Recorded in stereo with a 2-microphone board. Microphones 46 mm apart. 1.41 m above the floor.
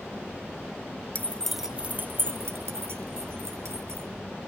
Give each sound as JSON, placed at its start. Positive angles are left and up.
{"t": 1.1, "sound": "keys jangling", "side_deg": 40, "distance_m": 0.8}